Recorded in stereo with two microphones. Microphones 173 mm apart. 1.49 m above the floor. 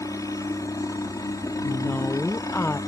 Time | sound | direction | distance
0.0 | a helicopter | 20° left (ahead or behind) | ?
1.6 | a woman speaking | 10° left (ahead or behind) | ?